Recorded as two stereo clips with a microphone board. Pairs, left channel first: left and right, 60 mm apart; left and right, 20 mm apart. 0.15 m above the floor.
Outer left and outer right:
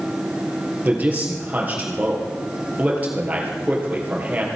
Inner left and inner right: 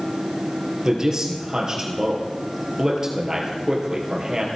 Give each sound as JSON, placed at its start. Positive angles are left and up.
{"t": 0.8, "sound": "a man speaking", "side_deg": -25, "distance_m": 2.5}